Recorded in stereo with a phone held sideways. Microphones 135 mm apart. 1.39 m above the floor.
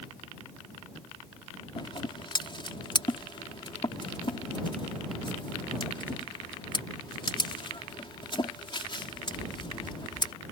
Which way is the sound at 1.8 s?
40° left (ahead or behind).